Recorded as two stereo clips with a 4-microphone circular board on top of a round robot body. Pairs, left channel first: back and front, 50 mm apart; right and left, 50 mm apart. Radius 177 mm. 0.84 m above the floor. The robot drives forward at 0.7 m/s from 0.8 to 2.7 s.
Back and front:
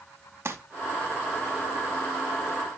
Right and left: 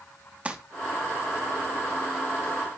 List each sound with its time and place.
0.5 s crumpling: 25° left, 1.1 m